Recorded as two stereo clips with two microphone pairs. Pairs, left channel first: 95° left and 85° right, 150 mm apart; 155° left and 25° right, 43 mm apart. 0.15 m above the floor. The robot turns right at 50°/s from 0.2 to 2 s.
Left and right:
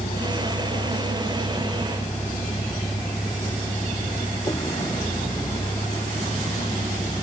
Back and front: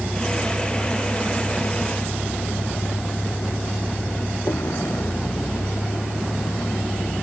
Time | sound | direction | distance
0.0 | a vehicle | 70° left | ?